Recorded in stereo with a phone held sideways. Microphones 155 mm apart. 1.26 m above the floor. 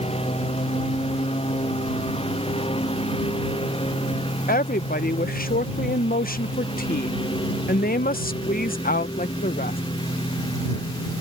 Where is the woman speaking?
70° left (ahead or behind).